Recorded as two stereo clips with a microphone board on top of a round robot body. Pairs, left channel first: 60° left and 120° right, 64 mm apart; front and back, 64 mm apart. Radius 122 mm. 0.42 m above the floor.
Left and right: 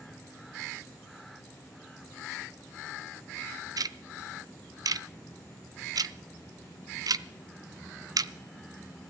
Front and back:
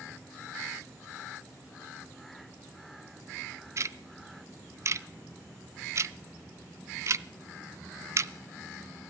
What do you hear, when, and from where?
3.8 s ticking: 140° right, 0.7 m